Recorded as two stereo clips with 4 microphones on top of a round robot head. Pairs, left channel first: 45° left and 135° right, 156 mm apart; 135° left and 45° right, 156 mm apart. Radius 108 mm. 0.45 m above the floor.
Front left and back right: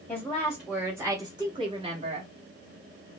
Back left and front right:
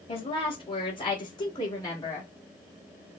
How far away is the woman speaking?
About 1.2 m.